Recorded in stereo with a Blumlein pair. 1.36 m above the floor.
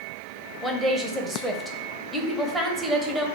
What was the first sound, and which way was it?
A woman speaking, 5° right.